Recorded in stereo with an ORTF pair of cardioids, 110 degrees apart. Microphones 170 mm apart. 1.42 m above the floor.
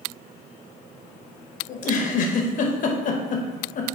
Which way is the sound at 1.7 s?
50° left.